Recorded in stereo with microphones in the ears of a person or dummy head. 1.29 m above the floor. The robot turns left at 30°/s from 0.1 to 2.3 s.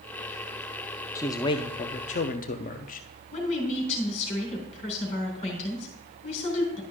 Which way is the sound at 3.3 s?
40° left (ahead or behind).